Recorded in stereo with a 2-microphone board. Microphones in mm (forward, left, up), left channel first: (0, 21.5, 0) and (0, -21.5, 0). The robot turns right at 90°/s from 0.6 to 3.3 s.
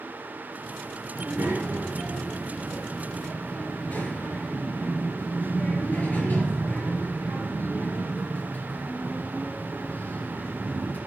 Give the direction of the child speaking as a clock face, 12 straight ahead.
5 o'clock.